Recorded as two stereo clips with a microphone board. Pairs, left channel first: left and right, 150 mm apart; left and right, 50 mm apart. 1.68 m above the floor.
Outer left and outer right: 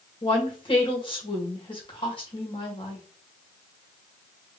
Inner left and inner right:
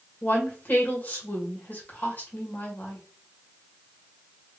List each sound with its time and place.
0.2 s a woman speaking: 35° left (ahead or behind), 1.8 m